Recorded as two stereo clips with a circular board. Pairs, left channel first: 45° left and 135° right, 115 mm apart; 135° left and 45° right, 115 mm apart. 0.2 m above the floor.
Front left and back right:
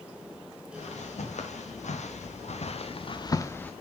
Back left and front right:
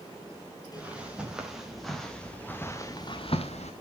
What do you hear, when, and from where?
0.7 s footsteps: 35° left, 3.5 m; by 3.7 s 125° left, 1.3 m